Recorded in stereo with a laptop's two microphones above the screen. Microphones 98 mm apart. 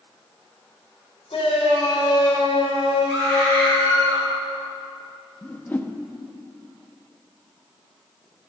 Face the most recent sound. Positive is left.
turn(degrees=20)  # may be behind; listen again after turning